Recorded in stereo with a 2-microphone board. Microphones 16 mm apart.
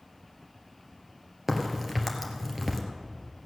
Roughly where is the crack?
Right.